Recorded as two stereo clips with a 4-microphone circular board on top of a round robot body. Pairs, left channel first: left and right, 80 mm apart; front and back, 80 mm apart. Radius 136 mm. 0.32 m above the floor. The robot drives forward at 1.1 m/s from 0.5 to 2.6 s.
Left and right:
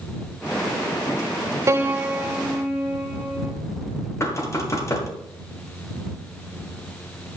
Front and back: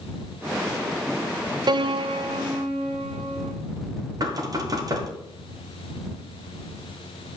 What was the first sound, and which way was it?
A piano, 145° right.